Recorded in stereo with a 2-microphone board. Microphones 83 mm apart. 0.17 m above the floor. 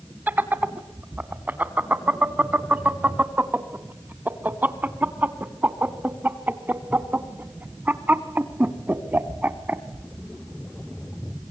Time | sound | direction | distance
0.3 | laughter | 25° right (ahead or behind) | 1.0 m